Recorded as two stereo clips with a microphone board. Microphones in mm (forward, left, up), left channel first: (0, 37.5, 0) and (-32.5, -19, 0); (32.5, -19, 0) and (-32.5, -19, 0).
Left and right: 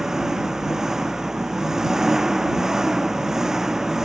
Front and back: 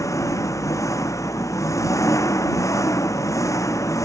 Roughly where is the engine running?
Ahead right.